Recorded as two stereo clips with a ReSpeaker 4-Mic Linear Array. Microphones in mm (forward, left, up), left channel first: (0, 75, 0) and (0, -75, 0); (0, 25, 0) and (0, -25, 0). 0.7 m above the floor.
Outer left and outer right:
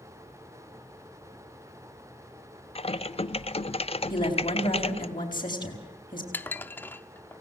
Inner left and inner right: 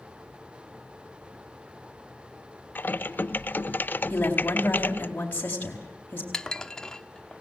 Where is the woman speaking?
30° left (ahead or behind), 4.5 m.